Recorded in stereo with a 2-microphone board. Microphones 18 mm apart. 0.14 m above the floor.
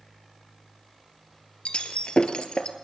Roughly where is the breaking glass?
Left.